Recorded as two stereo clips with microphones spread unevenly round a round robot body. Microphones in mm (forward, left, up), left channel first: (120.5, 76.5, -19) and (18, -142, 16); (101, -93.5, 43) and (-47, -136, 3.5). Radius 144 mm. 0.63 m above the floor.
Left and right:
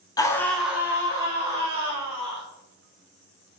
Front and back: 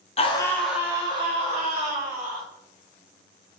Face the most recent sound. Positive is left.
turn(degrees=175)